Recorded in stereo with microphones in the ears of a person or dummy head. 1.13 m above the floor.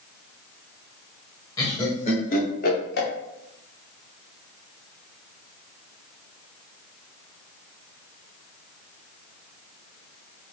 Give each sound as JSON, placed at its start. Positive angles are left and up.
{"t": 1.6, "sound": "laughter", "side_deg": 15, "distance_m": 1.0}